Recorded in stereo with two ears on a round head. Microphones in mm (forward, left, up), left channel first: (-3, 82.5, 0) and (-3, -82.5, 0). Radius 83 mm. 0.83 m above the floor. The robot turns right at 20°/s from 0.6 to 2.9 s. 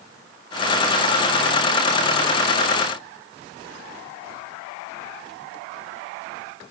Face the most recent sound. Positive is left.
No sound to turn to.